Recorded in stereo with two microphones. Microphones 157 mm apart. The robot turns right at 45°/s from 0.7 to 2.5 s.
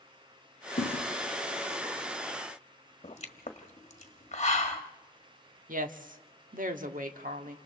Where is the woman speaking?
60° right (ahead or behind), 1.3 m.